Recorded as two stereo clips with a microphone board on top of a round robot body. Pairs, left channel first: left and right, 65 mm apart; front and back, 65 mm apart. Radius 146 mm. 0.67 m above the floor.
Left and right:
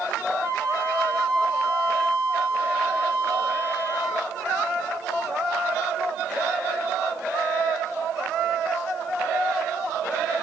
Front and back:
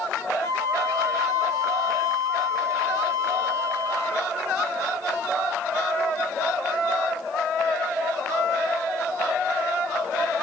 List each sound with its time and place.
0.4 s a flute: 15° left, 2.5 m